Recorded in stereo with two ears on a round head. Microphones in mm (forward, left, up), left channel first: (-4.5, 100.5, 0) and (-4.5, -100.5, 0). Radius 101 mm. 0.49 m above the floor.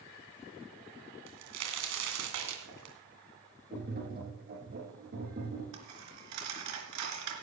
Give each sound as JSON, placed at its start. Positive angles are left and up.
{"t": 1.3, "sound": "a crack", "side_deg": -80, "distance_m": 2.5}
{"t": 3.7, "sound": "tapping", "side_deg": -40, "distance_m": 5.0}
{"t": 5.7, "sound": "a dropped coin", "side_deg": -85, "distance_m": 3.0}